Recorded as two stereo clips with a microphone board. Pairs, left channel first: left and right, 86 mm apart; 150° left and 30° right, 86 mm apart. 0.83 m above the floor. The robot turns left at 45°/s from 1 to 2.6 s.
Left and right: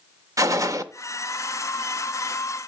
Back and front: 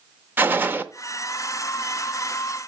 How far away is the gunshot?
About 0.5 m.